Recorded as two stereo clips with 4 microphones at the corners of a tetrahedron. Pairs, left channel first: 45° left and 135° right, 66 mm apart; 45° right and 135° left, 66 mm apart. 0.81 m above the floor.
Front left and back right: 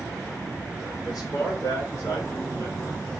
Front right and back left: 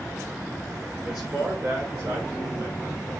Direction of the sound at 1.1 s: 65° left.